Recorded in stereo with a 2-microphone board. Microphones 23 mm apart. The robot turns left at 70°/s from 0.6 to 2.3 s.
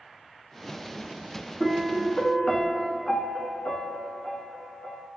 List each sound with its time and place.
1.6 s a piano: 145° left, 0.9 m; by 5.1 s 95° left, 0.9 m